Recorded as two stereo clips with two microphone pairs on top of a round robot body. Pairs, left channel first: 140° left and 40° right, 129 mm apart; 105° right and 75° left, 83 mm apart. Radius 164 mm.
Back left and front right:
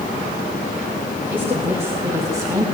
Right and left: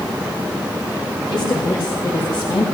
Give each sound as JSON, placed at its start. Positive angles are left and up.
{"t": 1.3, "sound": "a woman speaking", "azimuth_deg": -115, "distance_m": 5.5}